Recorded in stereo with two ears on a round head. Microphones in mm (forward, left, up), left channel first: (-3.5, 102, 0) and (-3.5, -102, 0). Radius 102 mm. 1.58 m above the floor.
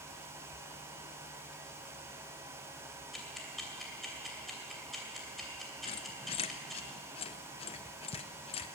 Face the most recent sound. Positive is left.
turn(degrees=25)  # may be behind; listen again after turning